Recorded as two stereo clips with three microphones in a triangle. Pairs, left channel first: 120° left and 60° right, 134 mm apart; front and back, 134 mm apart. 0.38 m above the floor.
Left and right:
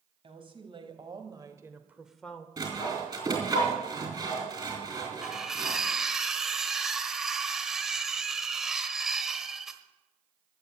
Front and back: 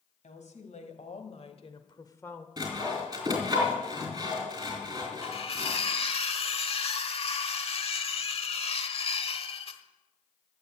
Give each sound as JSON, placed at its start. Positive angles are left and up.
{"t": 0.2, "sound": "a woman speaking", "azimuth_deg": -15, "distance_m": 2.0}
{"t": 2.6, "sound": "sawing", "azimuth_deg": -120, "distance_m": 4.5}
{"t": 5.2, "sound": "cutlery clinking", "azimuth_deg": 25, "distance_m": 1.0}